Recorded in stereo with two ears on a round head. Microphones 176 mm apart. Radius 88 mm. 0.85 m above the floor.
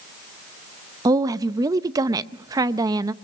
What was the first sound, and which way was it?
A woman speaking, 20° right (ahead or behind).